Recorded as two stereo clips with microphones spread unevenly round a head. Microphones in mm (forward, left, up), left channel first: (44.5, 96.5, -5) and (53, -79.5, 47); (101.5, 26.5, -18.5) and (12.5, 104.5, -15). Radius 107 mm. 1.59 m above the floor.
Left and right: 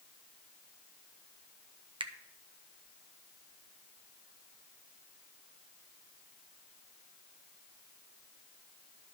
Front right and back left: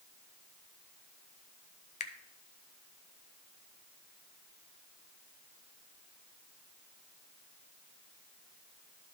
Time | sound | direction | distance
2.0 | a finger snap | 25° right | 0.7 m